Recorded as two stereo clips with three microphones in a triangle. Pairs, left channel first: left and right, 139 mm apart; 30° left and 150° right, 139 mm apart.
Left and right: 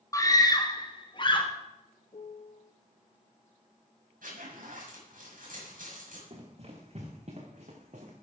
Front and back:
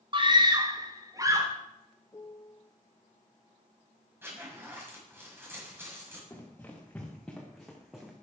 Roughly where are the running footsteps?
Ahead right.